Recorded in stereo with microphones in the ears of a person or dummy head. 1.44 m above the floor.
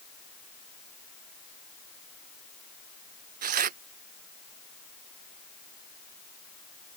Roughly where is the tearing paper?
Right.